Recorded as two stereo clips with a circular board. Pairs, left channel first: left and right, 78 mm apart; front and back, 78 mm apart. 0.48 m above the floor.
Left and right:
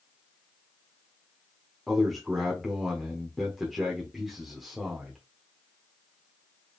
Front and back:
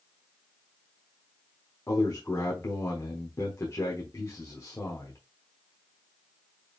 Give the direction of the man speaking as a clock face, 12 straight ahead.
12 o'clock.